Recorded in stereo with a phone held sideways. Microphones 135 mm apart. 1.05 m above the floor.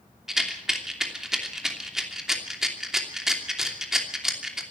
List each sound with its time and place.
0.3 s a rattle: 5° right (ahead or behind), 3 m